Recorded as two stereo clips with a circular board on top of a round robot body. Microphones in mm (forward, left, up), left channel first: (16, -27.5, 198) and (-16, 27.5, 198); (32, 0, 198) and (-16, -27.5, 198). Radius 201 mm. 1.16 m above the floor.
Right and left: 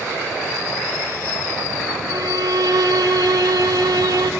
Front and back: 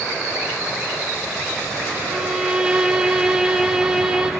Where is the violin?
135° left, 1.6 m.